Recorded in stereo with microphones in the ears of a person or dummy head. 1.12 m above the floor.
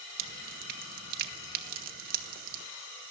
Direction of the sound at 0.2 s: 50° right (ahead or behind).